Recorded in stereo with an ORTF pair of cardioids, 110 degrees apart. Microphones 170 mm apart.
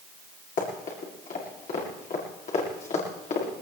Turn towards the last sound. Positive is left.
turn(degrees=50)